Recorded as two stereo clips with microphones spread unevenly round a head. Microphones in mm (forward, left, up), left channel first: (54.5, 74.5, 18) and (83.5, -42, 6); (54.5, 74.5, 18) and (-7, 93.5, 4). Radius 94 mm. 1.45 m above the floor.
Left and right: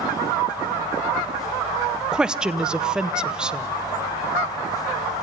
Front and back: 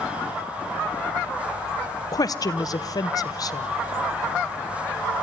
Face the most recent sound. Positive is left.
turn(degrees=10)